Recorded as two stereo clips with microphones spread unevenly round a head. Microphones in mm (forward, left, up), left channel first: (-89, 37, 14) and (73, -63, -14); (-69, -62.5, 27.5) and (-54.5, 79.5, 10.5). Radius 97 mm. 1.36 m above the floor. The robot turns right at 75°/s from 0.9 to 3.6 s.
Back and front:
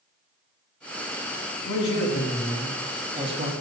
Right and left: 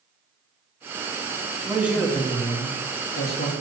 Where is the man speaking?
150° left, 1.6 m; by 3.5 s 70° right, 1.6 m.